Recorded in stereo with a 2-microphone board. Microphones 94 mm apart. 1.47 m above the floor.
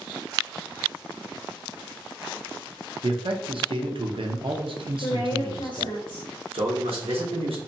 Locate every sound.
3.0 s a man speaking: 65° right (ahead or behind), 0.6 m
5.0 s a woman speaking: 65° left (ahead or behind), 0.8 m
6.5 s a man speaking: 85° right, 0.9 m